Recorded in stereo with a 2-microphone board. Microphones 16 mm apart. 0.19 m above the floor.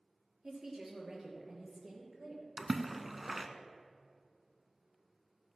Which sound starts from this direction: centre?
A splash, at 2.6 s.